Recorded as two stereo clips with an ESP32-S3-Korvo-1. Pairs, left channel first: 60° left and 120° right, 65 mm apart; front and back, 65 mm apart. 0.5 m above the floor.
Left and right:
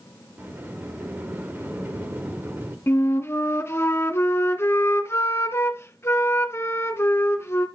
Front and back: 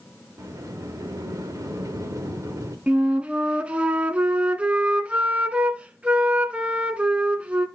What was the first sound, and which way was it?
A sliding door, 170° right.